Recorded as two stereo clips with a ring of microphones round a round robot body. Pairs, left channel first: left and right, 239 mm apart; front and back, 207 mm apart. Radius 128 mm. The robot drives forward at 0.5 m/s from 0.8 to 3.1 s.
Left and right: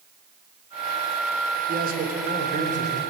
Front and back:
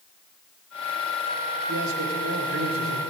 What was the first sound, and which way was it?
A man speaking, 145° right.